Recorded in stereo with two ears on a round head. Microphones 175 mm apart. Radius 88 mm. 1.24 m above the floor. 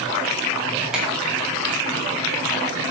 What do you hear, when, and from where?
0.9 s a finger snap: 5° right (ahead or behind), 3.5 m